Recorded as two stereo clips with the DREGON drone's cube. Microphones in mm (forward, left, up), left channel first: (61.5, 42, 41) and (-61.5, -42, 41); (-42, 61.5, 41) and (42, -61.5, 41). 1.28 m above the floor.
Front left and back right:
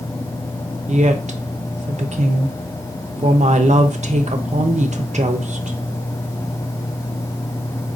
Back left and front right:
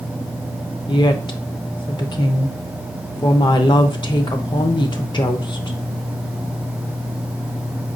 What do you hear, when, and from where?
0.9 s a woman speaking: straight behind, 0.5 m